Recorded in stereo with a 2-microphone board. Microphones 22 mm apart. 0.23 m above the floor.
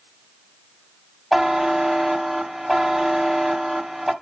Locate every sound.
1.3 s a buzzer: centre (ahead or behind), 1.3 m